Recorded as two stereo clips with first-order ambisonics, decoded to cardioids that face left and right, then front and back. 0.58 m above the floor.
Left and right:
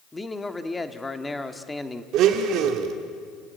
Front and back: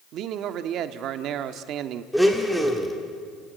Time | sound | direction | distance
0.1 | a man speaking | 170° left | 1.1 m
2.1 | a blender | 90° right | 1.9 m